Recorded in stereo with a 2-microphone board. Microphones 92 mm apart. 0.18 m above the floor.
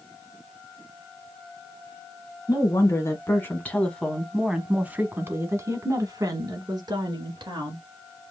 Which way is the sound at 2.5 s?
40° left (ahead or behind).